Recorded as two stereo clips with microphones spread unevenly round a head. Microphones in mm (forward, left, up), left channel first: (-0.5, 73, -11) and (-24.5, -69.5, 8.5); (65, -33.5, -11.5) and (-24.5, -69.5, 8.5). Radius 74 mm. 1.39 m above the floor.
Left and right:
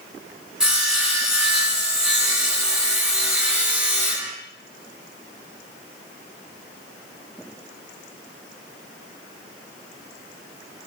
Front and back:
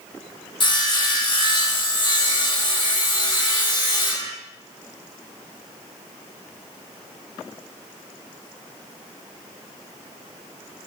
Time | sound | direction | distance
0.6 | sawing | 15° right | 2.5 m